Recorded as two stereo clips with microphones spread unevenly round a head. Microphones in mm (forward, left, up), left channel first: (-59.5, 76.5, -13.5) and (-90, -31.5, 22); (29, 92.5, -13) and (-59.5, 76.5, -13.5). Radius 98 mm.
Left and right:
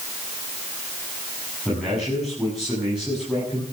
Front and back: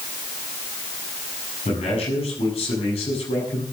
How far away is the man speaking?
About 8.5 m.